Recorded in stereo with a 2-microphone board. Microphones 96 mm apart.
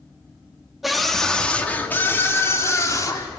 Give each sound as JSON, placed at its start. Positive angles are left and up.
{"t": 0.8, "sound": "a scream", "side_deg": 0, "distance_m": 1.7}